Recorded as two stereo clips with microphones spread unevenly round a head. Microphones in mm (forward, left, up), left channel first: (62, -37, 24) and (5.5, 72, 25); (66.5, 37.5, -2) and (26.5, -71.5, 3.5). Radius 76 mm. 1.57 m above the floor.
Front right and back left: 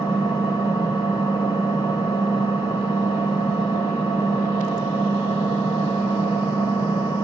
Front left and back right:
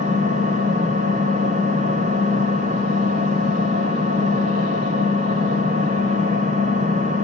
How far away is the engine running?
About 2.5 m.